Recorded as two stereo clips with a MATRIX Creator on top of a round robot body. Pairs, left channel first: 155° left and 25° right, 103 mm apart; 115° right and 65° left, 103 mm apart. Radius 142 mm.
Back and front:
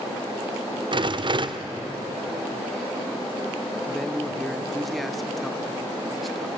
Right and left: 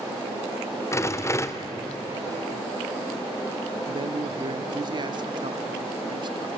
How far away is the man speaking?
About 1.3 m.